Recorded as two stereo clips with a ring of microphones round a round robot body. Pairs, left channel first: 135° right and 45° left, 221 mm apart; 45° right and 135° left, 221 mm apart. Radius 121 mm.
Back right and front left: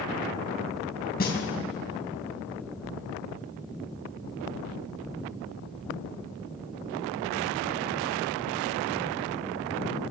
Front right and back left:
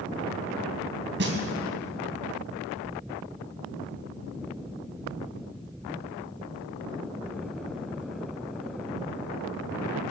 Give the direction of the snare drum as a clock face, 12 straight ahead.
6 o'clock.